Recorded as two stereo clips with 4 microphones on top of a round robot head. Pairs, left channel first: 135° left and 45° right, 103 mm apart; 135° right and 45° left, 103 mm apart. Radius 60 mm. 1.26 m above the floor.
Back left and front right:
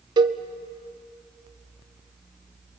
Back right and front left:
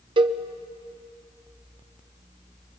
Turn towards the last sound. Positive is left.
turn(degrees=5)